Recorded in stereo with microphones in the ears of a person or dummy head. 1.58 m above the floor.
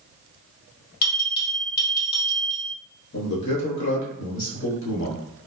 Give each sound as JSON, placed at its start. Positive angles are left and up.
{"t": 1.0, "sound": "a bell", "side_deg": 45, "distance_m": 1.3}
{"t": 3.1, "sound": "a man speaking", "side_deg": 60, "distance_m": 1.1}